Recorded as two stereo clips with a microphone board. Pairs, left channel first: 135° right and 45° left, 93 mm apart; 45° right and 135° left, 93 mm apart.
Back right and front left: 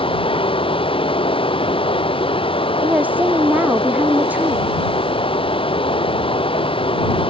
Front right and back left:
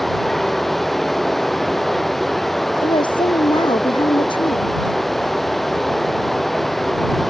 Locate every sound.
0.0 s running water: 135° right
2.8 s a woman speaking: 25° right